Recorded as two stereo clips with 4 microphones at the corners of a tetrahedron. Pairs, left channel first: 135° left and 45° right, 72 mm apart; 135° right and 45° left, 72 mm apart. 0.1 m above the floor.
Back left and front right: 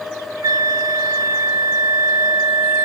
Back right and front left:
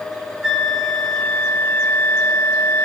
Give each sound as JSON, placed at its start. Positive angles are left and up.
{"t": 0.4, "sound": "a flute", "azimuth_deg": -35, "distance_m": 1.5}